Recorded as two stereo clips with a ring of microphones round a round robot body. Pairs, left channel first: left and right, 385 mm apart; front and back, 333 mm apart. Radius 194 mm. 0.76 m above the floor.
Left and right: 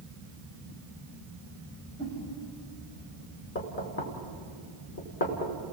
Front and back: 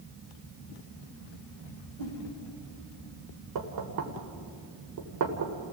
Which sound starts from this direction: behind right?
A whoosh, at 2.0 s.